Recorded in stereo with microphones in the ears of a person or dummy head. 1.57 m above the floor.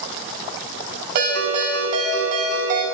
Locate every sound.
1.1 s a ringtone: 60° right (ahead or behind), 5 m